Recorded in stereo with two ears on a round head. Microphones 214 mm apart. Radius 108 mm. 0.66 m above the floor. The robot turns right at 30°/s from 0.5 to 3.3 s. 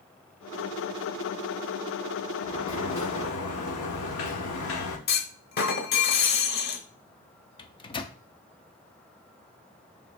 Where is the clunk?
45° left (ahead or behind), 0.9 m.